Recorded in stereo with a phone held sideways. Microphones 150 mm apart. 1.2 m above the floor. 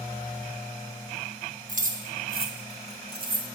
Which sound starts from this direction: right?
Keys jangling, at 1.7 s.